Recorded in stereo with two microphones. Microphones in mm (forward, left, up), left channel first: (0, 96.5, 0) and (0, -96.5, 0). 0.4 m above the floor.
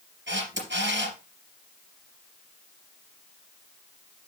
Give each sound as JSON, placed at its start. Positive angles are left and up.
{"t": 0.3, "sound": "a camera shutter", "side_deg": -85, "distance_m": 3.0}